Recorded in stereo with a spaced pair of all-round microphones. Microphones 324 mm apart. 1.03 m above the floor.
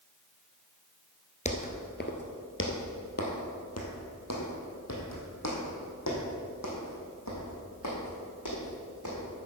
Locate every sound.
1.4 s footsteps: 20° left (ahead or behind), 1.1 m; by 9.2 s 60° left (ahead or behind), 4.5 m